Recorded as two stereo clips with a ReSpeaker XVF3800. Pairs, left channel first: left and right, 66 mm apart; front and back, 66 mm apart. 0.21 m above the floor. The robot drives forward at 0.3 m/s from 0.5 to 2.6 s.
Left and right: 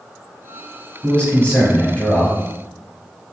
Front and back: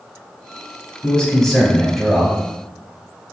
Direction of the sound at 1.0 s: 55° left.